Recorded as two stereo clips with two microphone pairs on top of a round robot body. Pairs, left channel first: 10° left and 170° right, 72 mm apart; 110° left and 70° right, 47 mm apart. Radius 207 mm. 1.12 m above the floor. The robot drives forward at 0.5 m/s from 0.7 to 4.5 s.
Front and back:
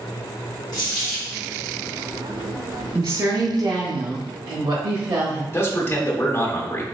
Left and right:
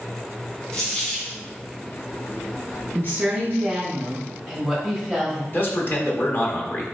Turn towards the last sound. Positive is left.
turn(degrees=70)